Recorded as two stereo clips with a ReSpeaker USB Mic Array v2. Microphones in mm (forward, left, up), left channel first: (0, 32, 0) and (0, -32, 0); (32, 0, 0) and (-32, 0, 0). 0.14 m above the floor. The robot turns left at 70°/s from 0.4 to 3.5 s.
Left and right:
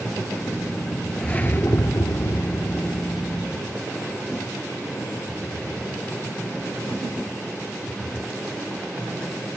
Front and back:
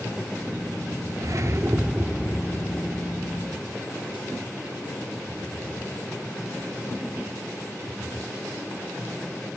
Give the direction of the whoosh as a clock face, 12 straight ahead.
6 o'clock.